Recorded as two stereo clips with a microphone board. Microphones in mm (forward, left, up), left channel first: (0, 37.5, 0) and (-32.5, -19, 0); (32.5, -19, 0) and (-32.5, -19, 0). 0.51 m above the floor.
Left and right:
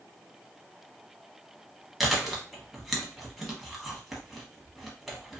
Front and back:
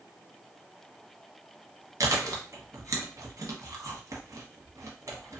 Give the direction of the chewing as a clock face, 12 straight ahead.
7 o'clock.